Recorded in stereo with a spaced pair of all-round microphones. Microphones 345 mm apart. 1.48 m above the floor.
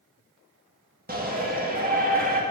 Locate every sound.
1.1 s a shout: 25° right (ahead or behind), 2 m